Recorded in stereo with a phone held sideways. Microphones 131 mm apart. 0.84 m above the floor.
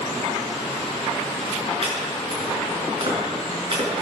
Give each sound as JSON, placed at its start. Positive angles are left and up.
{"t": 1.8, "sound": "chopping", "side_deg": -45, "distance_m": 6.0}